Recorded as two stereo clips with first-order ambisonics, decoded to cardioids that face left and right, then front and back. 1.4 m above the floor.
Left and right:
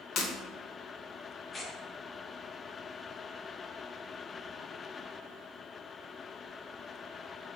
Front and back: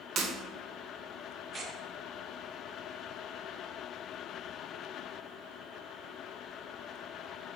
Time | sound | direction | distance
0.2 | breaking glass | 130° left | 0.7 m
1.5 | tearing paper | 135° left | 0.6 m